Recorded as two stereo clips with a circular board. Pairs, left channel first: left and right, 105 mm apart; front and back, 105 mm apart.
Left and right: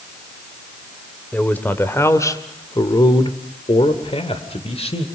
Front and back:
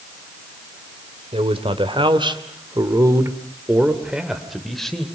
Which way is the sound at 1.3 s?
165° left.